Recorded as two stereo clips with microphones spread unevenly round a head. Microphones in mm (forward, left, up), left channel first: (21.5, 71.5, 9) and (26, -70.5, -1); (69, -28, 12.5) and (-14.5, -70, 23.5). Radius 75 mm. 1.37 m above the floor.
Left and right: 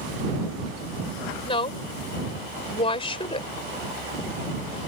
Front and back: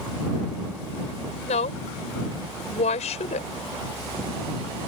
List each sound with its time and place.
1.4 s a woman speaking: 40° left